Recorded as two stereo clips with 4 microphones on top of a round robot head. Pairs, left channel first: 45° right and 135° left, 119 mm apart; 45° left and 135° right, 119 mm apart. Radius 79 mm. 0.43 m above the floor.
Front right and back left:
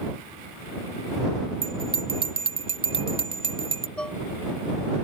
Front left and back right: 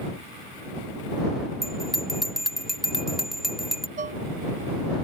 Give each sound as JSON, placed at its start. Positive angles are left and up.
{"t": 1.6, "sound": "a bell", "azimuth_deg": 135}
{"t": 4.0, "sound": "dishes clattering", "azimuth_deg": -125}